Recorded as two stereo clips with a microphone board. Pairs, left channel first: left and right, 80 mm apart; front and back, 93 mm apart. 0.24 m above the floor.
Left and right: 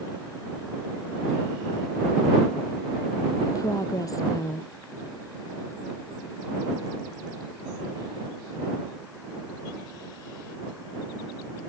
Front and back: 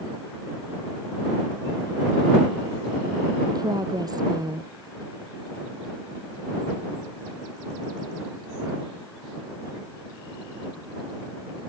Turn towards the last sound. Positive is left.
turn(degrees=135)